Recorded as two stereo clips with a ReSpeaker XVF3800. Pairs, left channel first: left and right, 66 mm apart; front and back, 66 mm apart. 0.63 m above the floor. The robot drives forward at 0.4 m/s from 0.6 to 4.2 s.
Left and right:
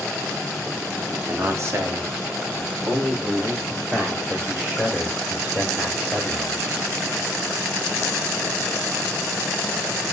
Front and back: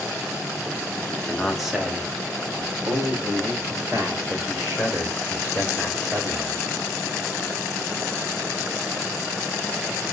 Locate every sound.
1.1 s a man speaking: 75° right, 0.8 m; by 6.7 s 155° right, 1.3 m